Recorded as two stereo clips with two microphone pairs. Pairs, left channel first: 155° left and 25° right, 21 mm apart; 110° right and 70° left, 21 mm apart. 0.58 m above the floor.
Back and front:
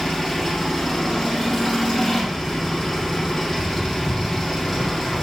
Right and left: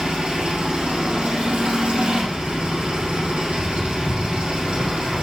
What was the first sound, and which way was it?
An engine running, 80° left.